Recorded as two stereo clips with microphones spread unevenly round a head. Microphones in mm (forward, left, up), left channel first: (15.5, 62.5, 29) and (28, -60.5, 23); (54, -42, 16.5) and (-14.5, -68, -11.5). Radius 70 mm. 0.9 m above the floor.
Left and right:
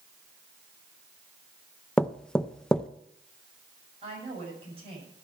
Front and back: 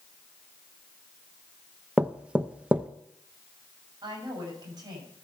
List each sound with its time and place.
2.0 s knocking: straight behind, 0.5 m
4.0 s a woman speaking: 135° right, 6.5 m